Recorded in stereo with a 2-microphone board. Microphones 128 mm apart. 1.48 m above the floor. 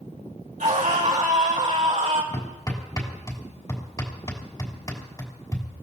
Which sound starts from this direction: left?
Hammering, at 2.3 s.